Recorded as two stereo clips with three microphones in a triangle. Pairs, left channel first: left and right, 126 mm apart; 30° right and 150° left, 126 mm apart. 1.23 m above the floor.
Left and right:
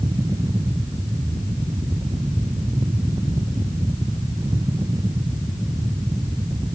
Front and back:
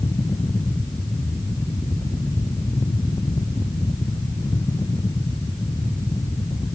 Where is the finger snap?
I don't hear a finger snap.